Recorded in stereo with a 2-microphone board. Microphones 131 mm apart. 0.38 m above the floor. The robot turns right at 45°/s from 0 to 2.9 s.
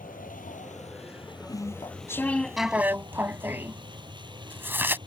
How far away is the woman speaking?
I don't hear a woman speaking.